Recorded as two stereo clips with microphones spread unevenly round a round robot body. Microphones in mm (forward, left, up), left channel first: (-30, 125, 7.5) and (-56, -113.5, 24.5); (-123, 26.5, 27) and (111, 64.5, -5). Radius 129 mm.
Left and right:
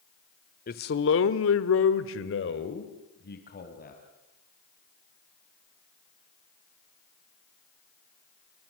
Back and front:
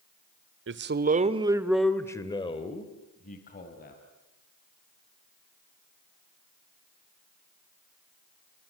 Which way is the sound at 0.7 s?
35° left.